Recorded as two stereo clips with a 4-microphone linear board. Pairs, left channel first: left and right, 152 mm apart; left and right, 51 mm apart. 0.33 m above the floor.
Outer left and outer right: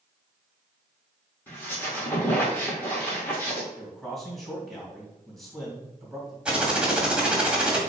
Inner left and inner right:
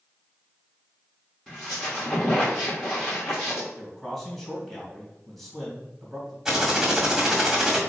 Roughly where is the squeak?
Centre.